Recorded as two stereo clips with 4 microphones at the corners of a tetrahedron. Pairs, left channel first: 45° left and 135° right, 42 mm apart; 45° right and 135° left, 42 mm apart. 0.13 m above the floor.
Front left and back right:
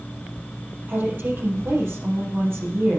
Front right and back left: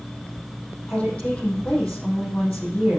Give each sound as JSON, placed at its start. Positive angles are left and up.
{"t": 0.9, "sound": "a woman speaking", "azimuth_deg": -105, "distance_m": 4.0}